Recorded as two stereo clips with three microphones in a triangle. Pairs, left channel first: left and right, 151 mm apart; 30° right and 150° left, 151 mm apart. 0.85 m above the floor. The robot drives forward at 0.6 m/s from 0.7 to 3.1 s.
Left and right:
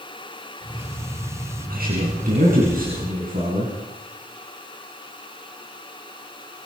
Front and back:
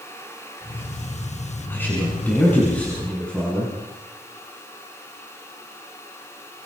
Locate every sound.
1.7 s a man speaking: 105° right, 8 m; by 3.7 s 115° right, 8 m